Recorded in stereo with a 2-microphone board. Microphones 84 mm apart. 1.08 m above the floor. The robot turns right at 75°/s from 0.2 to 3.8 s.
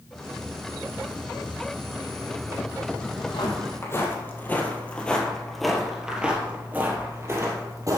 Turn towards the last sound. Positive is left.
turn(degrees=-40)  # may be behind; listen again after turning